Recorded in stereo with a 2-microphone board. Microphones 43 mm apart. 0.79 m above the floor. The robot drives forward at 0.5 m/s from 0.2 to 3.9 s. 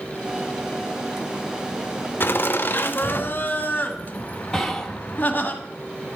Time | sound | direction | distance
2.2 | laughter | 55° left (ahead or behind) | 1.1 m
4.5 | whispering | 10° left (ahead or behind) | 0.9 m